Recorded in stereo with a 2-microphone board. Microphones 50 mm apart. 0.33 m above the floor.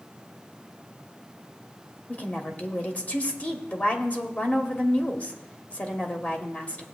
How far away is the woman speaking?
About 1.3 m.